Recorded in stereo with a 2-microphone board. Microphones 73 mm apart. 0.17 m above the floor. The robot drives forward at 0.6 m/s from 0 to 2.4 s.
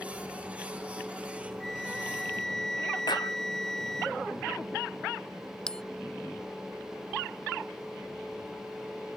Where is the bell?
10° left (ahead or behind).